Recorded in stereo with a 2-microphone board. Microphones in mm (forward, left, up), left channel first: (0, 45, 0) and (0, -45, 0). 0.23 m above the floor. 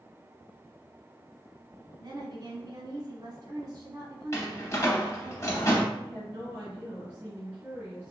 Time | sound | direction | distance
2.0 | a woman speaking | 45° right (ahead or behind) | 1.6 m
4.3 | a door slam | 35° left (ahead or behind) | 0.7 m
5.9 | a woman speaking | 15° right (ahead or behind) | 1.6 m